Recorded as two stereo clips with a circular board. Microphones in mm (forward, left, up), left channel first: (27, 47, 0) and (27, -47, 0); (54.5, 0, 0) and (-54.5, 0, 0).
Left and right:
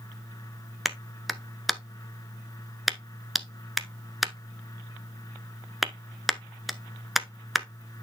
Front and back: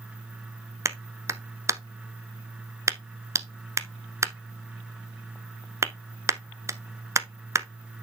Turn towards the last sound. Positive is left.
turn(degrees=-175)